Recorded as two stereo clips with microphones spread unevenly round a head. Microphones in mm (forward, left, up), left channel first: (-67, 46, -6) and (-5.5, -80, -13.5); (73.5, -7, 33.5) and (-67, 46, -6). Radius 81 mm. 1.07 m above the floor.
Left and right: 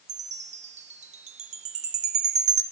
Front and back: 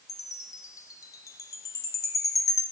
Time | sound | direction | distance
0.1 | a chime | 65° right | 0.5 m